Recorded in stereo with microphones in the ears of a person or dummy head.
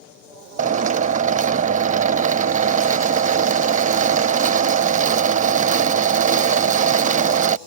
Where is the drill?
40° right (ahead or behind).